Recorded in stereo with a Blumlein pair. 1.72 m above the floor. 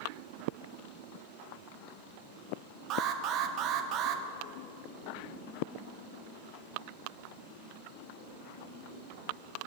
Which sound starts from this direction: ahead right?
An alarm, at 2.9 s.